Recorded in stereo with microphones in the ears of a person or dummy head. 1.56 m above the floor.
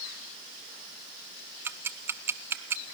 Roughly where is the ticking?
Centre.